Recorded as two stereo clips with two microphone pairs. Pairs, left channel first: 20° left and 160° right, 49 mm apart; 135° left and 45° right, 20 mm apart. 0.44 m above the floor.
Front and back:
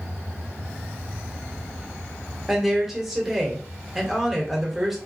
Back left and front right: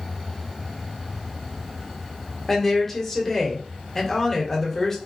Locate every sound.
2.5 s a woman speaking: 115° left, 1.1 m